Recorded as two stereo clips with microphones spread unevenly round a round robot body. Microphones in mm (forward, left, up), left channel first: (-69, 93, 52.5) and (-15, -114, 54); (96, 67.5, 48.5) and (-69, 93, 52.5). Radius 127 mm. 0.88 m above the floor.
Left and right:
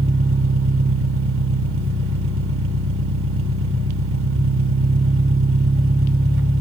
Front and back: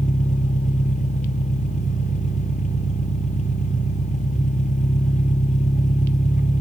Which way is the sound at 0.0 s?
60° right.